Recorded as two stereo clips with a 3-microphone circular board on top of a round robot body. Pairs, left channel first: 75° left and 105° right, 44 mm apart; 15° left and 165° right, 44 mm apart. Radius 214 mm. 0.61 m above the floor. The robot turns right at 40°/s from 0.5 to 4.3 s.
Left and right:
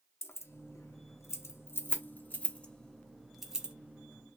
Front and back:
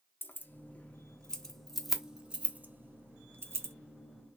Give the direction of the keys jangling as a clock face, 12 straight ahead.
10 o'clock.